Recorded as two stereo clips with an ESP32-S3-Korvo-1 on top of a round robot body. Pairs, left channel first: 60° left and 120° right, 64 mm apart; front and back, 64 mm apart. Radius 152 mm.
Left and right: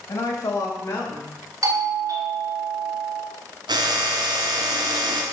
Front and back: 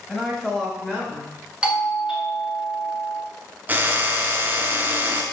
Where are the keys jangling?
I don't hear keys jangling.